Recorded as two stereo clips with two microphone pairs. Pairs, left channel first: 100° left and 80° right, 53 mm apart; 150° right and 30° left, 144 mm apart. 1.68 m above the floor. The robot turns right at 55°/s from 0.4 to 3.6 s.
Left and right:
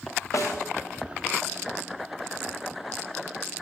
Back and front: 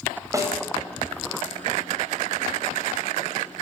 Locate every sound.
0.3 s a snare drum: 95° left, 9.5 m; by 0.6 s 105° left, 9.5 m